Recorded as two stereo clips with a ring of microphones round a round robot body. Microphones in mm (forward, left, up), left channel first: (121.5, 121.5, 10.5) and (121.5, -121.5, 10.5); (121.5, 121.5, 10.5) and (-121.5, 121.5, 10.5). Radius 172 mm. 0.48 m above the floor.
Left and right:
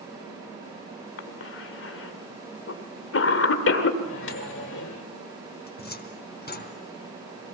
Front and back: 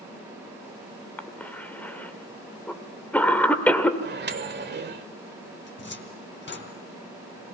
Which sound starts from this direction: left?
A cough, at 1.2 s.